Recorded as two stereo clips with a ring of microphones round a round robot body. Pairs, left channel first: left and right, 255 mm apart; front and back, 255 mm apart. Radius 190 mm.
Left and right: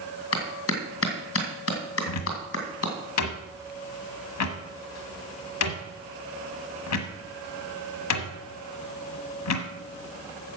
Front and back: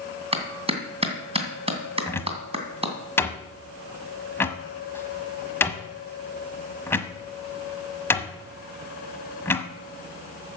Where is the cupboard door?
80° left, 1.2 m.